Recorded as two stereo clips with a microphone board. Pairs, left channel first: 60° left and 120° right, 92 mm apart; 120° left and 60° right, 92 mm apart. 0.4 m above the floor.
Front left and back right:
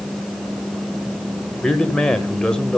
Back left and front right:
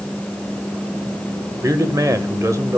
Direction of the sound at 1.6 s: 20° right.